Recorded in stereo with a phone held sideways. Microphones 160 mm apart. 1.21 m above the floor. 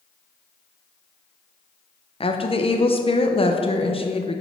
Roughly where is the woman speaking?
Left.